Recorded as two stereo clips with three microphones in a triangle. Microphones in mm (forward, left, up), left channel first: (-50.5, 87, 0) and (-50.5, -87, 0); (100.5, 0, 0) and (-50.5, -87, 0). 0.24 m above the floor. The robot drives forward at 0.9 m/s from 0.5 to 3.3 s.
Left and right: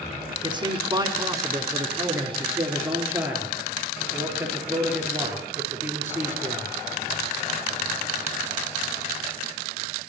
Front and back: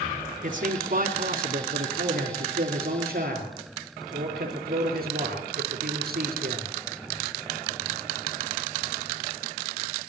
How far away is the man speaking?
About 2 m.